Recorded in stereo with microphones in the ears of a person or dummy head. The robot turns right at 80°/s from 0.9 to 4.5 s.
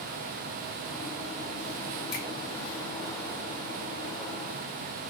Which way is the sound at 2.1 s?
55° left (ahead or behind).